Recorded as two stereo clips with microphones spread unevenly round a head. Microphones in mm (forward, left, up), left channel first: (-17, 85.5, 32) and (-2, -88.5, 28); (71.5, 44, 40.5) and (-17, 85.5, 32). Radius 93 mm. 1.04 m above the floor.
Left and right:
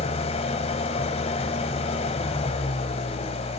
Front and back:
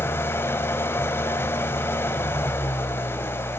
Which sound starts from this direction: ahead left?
An engine running, at 0.0 s.